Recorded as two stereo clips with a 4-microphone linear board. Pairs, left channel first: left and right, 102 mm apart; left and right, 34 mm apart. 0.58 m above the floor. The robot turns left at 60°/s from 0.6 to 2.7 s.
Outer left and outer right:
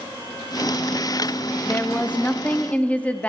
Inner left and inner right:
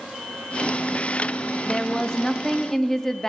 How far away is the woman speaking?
About 0.6 m.